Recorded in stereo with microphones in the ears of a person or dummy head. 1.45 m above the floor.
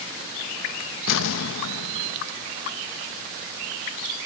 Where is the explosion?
75° left (ahead or behind).